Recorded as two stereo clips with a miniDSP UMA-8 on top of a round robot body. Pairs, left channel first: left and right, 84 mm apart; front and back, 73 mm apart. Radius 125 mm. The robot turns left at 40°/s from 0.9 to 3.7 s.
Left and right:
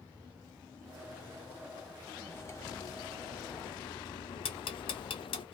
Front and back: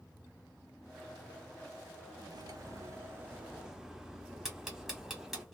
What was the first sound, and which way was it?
Cutlery clinking, 155° left.